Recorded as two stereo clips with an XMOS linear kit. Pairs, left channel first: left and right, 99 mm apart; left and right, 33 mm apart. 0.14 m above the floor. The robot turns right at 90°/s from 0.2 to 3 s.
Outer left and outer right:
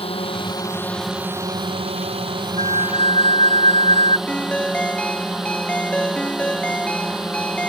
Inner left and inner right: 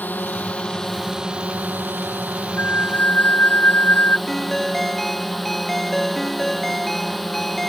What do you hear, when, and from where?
0.0 s a drone: 105° left; by 7.7 s 5° right
2.6 s a flute: 70° left; by 4.2 s 110° left
4.3 s a ringtone: 10° left (ahead or behind)